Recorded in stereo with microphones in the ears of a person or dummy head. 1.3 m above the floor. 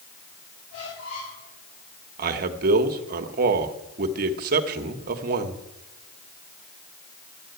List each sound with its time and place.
0.7 s a squeak: 60° left (ahead or behind), 7 m
2.2 s a man speaking: 50° right (ahead or behind), 1.3 m